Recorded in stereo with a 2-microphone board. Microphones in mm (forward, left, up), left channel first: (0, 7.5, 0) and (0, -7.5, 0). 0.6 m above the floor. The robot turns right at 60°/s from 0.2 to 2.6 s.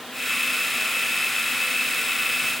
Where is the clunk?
I don't hear a clunk.